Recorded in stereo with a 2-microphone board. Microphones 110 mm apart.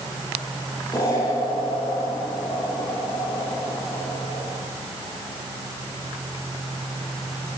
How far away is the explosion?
About 10 m.